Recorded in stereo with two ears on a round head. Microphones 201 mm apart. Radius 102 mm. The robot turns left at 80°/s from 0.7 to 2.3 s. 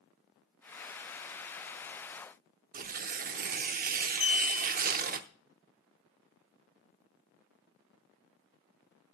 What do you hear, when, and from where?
2.7 s tearing paper: 40° right (ahead or behind), 0.8 m
4.2 s a clink: 30° left (ahead or behind), 9 m